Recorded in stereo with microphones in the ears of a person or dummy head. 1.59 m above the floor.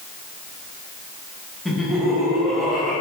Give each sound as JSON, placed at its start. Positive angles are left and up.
{"t": 1.6, "sound": "laughter", "side_deg": 0, "distance_m": 1.9}